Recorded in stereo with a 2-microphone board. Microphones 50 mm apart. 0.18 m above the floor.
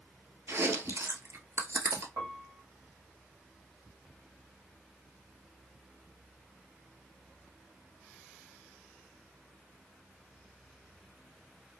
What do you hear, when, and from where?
0.5 s chewing: 65° right (ahead or behind), 1.0 m
2.2 s a piano: 80° right, 1.8 m